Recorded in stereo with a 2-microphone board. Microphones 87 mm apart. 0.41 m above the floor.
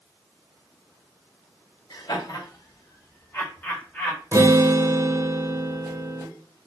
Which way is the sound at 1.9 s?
55° left (ahead or behind).